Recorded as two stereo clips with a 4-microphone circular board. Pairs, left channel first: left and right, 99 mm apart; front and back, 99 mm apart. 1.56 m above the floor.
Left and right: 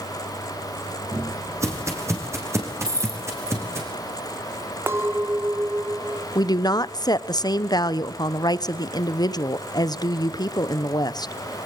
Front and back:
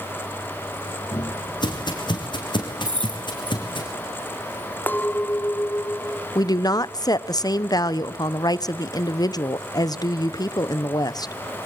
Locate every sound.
1.1 s footsteps: 35° right, 4.5 m; by 3.9 s 30° right, 6.5 m
2.9 s keys jangling: 145° right, 2.5 m
4.9 s a clink: 55° right, 0.7 m
6.3 s a woman speaking: 45° left, 0.9 m